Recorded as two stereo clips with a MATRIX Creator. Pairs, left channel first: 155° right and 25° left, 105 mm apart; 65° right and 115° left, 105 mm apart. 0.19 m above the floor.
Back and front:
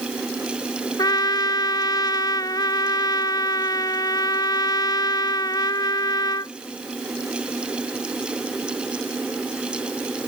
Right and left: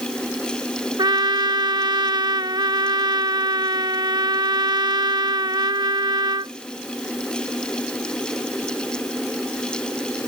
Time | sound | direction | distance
1.0 | a trumpet | 155° left | ?